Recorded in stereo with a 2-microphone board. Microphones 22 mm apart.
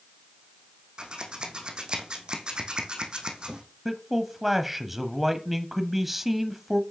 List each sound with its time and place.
1.0 s scissors: 50° right (ahead or behind), 2.5 m
3.9 s a man speaking: 10° right (ahead or behind), 1.2 m